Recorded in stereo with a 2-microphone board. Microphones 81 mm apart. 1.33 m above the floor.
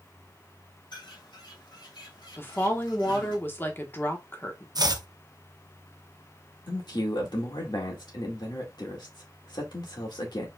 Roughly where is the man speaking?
Left.